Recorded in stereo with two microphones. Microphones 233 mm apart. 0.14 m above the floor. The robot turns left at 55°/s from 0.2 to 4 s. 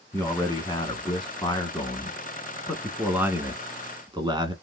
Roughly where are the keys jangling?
No keys jangling in this recording.